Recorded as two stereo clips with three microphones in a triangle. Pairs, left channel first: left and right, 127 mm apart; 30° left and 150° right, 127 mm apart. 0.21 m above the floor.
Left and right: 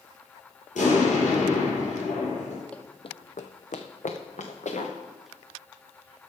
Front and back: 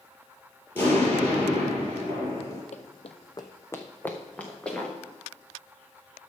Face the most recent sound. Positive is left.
turn(degrees=115)